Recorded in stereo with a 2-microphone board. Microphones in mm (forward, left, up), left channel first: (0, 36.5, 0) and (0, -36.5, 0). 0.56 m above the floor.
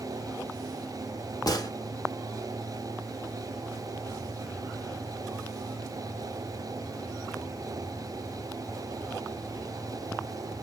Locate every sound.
1.5 s a gunshot: 60° left (ahead or behind), 1.0 m